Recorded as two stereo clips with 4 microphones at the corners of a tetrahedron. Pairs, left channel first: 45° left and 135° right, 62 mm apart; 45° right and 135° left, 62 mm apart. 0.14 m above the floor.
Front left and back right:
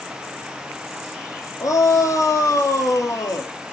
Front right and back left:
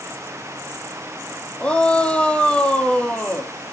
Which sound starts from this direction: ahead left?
A shout, at 1.6 s.